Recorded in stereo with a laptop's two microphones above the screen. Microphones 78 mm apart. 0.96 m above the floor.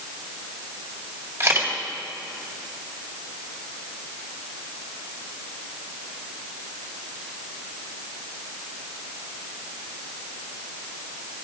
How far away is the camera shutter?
About 1.8 m.